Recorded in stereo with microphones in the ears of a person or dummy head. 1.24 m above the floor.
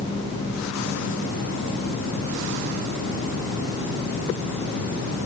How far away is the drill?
No drill in this recording.